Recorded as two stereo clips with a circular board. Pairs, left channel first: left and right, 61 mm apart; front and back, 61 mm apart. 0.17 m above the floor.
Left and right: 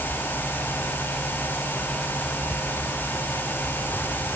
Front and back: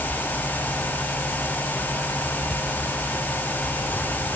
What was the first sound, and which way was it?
Only background noise.